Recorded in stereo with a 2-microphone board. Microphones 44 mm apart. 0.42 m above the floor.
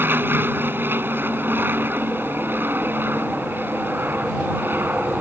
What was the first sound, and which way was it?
An aircraft, 55° right (ahead or behind).